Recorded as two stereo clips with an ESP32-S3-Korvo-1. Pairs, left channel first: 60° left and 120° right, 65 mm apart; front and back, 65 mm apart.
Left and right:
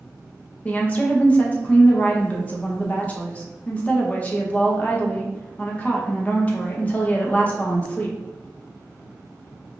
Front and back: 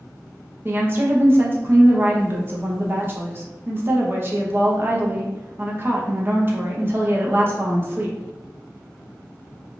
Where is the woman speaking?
130° left, 0.6 m.